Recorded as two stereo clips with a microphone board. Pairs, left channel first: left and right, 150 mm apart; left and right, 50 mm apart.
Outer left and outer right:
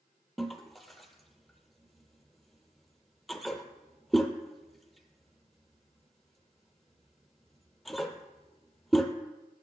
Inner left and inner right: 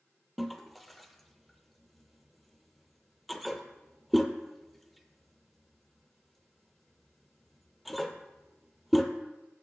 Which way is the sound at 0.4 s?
Centre (ahead or behind).